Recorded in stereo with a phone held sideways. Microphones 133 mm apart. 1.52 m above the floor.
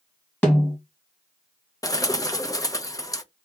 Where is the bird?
25° left (ahead or behind), 0.6 m.